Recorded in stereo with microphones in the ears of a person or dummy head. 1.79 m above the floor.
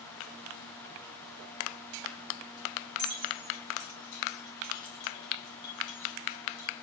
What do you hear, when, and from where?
3.0 s keys jangling: 30° right (ahead or behind), 1.5 m; by 6.7 s 50° left (ahead or behind), 1.6 m